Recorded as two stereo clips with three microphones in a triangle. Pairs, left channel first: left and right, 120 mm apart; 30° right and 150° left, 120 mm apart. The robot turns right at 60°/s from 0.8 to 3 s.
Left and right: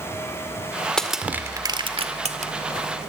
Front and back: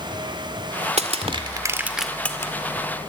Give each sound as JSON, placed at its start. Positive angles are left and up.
{"t": 1.0, "sound": "crushing", "azimuth_deg": 175, "distance_m": 1.9}